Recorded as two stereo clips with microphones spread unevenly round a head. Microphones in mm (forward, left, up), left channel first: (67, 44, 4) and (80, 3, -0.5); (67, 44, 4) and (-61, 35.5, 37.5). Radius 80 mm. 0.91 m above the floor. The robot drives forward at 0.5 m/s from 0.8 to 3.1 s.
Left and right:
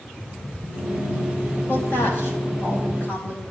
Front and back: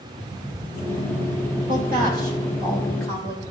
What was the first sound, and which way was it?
A woman speaking, 170° left.